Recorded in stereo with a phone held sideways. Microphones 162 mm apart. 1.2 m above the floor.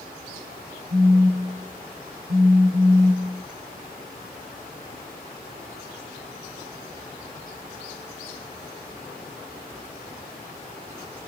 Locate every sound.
0.9 s a phone buzzing: 65° right (ahead or behind), 6.5 m